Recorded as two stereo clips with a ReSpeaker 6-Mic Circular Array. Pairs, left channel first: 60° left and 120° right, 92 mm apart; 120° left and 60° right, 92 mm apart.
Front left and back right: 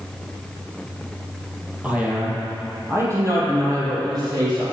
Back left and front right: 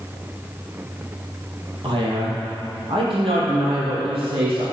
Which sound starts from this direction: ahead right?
A man speaking, at 1.8 s.